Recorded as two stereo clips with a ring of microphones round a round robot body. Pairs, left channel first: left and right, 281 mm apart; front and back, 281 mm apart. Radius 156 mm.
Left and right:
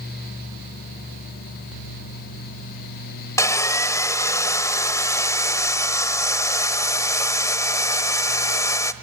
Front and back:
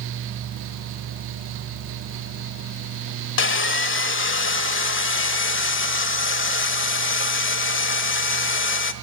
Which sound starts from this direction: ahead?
Sawing, at 3.4 s.